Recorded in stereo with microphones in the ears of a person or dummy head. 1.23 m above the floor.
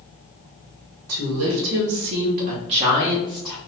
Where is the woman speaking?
80° right, 1.7 m; by 3.6 s 10° left (ahead or behind), 1.3 m.